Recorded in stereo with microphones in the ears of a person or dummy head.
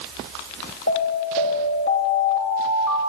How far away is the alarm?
About 3.5 m.